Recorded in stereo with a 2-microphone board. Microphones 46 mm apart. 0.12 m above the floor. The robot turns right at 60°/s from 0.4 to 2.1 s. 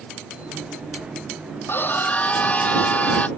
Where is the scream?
55° left (ahead or behind); by 3.3 s 30° left (ahead or behind).